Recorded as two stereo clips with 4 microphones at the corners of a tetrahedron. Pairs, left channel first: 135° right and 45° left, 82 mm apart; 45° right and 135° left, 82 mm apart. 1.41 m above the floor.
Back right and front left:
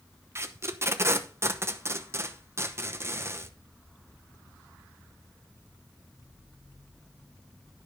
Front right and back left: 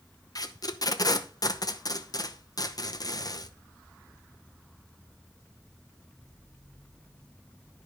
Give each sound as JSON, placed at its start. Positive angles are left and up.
{"t": 0.3, "sound": "tape being pulled", "azimuth_deg": -10, "distance_m": 0.8}